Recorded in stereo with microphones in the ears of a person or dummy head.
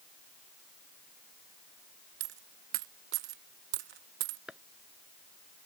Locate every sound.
2.2 s a dropped coin: 45° right (ahead or behind)
4.5 s chopping: centre (ahead or behind)